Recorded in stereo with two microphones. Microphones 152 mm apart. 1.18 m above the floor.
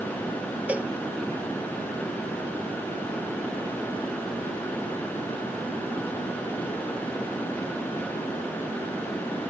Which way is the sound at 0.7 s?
10° right (ahead or behind).